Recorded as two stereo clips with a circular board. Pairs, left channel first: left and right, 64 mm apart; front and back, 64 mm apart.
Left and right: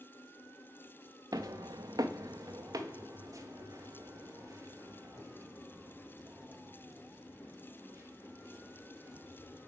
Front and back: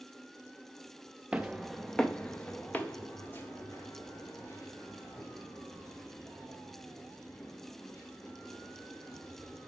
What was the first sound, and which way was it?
Footsteps, 105° right.